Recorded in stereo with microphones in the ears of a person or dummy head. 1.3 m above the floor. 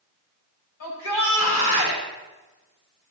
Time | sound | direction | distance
0.8 | a shout | 75° left (ahead or behind) | 6 m